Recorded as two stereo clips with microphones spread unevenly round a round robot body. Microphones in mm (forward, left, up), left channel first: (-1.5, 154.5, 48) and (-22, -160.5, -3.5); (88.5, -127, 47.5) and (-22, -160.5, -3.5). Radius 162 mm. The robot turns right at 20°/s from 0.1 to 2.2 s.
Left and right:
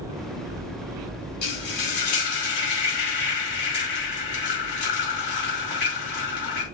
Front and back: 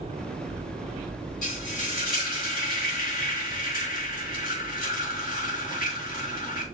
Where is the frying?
50° left, 5 m; by 6.7 s 65° left, 5 m.